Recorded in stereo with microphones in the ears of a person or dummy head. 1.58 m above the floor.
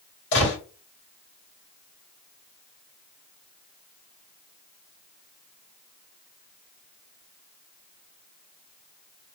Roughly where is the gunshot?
Left.